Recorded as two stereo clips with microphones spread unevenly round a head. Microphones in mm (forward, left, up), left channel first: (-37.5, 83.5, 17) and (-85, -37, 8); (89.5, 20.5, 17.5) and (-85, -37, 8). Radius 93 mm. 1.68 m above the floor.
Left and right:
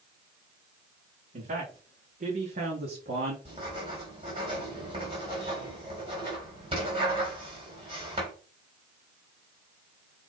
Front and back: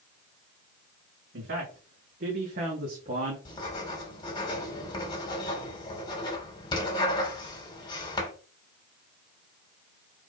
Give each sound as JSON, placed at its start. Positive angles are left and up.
{"t": 1.3, "sound": "a man speaking", "azimuth_deg": -125, "distance_m": 3.5}
{"t": 3.5, "sound": "writing", "azimuth_deg": -50, "distance_m": 3.0}